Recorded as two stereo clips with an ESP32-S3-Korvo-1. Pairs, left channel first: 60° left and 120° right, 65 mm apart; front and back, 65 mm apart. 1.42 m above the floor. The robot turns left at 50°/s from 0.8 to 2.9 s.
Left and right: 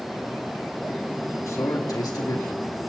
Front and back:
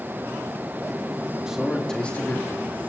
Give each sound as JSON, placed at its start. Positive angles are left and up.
{"t": 1.5, "sound": "a man speaking", "azimuth_deg": 100, "distance_m": 3.0}